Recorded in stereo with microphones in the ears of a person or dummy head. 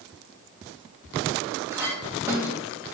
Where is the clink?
10° right (ahead or behind), 1.6 m.